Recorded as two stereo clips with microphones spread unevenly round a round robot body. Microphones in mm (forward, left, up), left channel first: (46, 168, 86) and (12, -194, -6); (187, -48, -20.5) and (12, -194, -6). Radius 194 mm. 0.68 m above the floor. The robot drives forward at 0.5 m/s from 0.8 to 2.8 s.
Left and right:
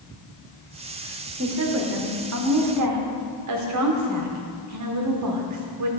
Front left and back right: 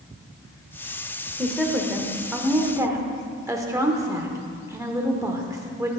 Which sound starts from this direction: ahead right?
A woman speaking, at 1.4 s.